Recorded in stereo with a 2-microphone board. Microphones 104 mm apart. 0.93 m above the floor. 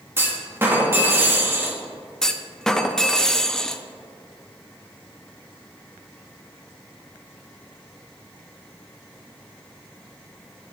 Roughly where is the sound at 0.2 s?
Right.